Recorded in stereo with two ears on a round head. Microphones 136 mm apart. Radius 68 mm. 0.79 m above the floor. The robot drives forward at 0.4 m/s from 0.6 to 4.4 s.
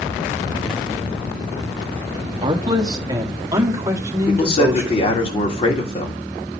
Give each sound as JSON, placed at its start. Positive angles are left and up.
{"t": 2.4, "sound": "a man speaking", "side_deg": -30, "distance_m": 1.1}
{"t": 4.3, "sound": "a man speaking", "side_deg": 40, "distance_m": 2.5}